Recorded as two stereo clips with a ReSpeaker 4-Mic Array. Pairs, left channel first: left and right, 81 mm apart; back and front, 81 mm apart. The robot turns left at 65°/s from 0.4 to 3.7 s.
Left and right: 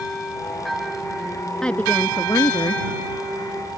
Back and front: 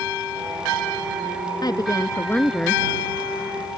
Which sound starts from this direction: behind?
A woman speaking, at 1.6 s.